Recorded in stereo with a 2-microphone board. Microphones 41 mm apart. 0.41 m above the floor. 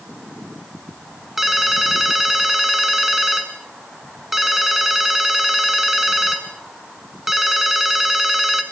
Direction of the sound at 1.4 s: 5° right (ahead or behind).